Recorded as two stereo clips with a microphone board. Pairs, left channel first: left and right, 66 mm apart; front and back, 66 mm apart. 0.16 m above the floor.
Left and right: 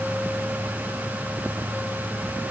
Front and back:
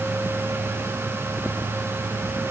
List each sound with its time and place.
Only background noise.